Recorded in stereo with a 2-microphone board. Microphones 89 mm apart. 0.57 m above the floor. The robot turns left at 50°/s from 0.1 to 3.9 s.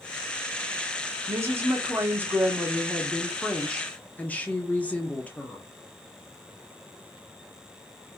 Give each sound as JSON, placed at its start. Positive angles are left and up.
{"t": 1.3, "sound": "a woman speaking", "azimuth_deg": -85, "distance_m": 1.2}